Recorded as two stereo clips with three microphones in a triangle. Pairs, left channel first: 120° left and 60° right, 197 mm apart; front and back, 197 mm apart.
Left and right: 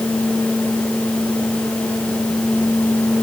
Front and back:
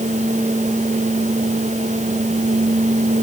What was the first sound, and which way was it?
Only background noise.